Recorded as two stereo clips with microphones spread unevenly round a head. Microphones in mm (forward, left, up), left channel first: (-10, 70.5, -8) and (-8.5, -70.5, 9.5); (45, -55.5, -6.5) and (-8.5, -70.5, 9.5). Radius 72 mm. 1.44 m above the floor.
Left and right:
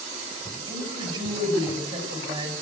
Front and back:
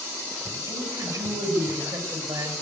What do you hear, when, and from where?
0.7 s a woman speaking: 145° right, 6.5 m